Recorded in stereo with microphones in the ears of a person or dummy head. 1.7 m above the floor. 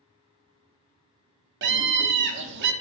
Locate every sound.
1.6 s a scream: 60° right (ahead or behind), 0.5 m